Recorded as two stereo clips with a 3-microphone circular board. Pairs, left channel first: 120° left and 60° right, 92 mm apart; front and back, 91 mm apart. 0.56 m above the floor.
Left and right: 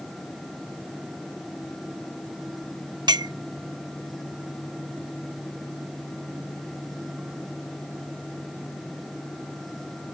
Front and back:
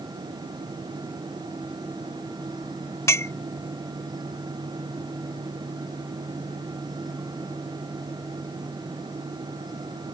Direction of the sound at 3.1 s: 50° right.